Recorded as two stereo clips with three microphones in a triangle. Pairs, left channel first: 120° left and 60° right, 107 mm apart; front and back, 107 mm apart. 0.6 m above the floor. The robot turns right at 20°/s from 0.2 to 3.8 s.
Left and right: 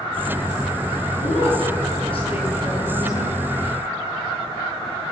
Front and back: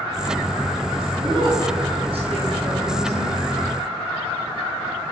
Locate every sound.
1.2 s a woman speaking: 135° left, 9 m; by 3.4 s 175° left, 9 m